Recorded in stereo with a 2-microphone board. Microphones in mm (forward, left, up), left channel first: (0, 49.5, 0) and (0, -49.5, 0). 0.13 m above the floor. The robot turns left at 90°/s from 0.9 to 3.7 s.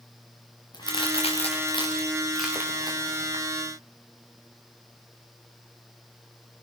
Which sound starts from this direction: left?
A crack, at 0.7 s.